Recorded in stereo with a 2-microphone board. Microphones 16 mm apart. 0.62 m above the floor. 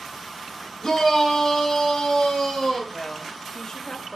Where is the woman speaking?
40° left (ahead or behind), 1.2 m.